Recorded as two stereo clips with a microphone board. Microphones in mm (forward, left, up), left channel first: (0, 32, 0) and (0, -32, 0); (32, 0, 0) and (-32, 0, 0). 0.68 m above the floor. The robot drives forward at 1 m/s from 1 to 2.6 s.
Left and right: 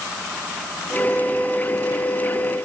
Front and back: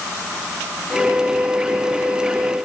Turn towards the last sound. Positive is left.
No sound to turn to.